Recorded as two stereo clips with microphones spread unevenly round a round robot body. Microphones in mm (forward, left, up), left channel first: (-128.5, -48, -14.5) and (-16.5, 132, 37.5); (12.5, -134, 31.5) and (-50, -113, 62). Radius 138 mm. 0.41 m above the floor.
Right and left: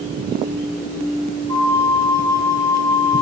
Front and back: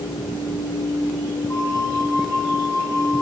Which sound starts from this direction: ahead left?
A flute, at 1.5 s.